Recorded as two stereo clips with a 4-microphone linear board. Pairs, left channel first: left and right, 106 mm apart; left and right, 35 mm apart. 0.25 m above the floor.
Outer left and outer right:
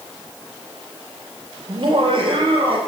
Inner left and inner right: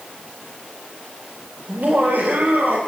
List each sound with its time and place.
1.7 s laughter: 45° right (ahead or behind), 5 m; by 2.8 s 55° right (ahead or behind), 5 m